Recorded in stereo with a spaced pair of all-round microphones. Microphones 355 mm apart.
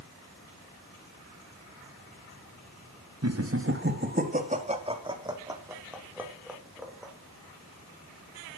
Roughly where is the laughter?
Right.